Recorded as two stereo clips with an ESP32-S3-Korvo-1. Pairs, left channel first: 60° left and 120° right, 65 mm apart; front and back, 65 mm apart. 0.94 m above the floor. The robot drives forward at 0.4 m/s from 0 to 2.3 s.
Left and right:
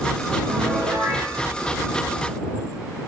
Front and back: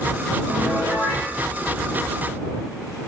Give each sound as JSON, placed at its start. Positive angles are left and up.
{"t": 0.5, "sound": "a piano", "azimuth_deg": -95, "distance_m": 5.5}